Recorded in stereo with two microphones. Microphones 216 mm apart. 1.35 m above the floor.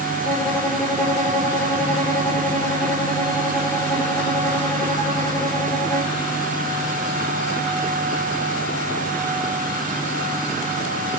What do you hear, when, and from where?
0.2 s a violin: 10° left (ahead or behind), 1.6 m